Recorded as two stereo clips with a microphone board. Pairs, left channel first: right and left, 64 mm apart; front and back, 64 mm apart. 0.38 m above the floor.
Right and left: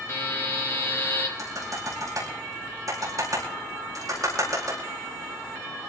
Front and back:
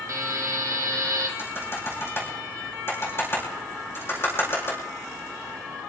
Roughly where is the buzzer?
Behind right.